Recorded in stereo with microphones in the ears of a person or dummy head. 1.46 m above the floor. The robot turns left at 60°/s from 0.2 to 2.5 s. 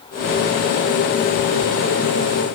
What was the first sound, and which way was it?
Only background noise.